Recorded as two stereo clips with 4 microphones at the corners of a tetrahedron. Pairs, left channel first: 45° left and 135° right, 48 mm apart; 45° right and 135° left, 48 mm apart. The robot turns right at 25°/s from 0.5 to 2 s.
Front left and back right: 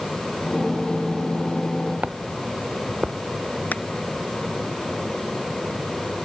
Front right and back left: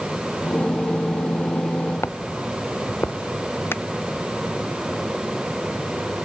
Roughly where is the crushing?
Ahead.